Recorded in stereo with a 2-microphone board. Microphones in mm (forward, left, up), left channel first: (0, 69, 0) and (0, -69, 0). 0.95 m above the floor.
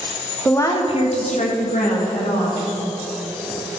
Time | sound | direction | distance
0.5 | a woman speaking | 15° left (ahead or behind) | 0.9 m